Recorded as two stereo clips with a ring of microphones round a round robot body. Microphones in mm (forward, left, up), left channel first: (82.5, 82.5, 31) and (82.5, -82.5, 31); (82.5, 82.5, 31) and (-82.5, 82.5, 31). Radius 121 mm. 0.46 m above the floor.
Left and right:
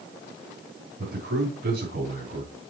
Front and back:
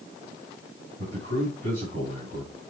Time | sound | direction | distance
1.0 | a man speaking | 130° right | 3.5 m